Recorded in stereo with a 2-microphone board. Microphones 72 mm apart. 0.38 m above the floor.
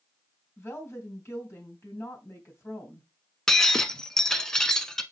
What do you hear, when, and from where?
0.6 s a woman speaking: 35° left (ahead or behind), 3 m
3.5 s breaking glass: 10° left (ahead or behind), 0.8 m